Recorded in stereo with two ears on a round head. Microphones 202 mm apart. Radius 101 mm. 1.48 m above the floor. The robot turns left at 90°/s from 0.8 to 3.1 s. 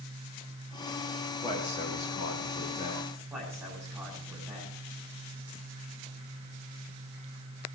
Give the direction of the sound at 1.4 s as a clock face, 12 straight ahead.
7 o'clock.